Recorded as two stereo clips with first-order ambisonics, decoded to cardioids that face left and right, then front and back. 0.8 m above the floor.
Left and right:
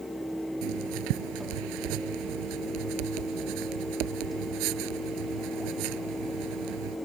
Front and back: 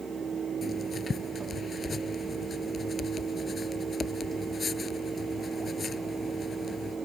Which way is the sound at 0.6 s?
75° right.